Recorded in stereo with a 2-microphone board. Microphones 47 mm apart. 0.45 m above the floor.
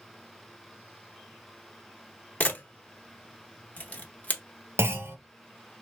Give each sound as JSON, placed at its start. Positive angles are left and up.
{"t": 2.4, "sound": "a camera shutter", "side_deg": 30, "distance_m": 0.8}
{"t": 4.8, "sound": "a clunk", "side_deg": -60, "distance_m": 0.5}